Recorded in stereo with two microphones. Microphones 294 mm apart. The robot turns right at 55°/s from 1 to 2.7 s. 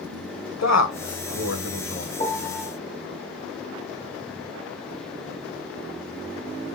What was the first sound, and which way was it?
A man speaking, 65° left (ahead or behind).